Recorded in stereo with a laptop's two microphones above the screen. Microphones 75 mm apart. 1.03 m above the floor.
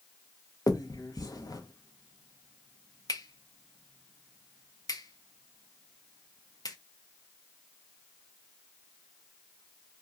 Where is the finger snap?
55° left (ahead or behind), 0.7 m.